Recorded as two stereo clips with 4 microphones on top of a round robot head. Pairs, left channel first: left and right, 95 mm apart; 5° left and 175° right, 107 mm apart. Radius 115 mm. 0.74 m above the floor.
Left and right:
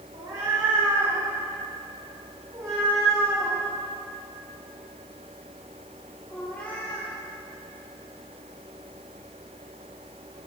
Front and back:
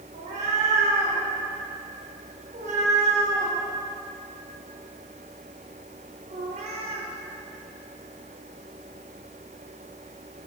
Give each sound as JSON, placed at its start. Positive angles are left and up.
{"t": 0.1, "sound": "a cat meowing", "azimuth_deg": -150, "distance_m": 4.5}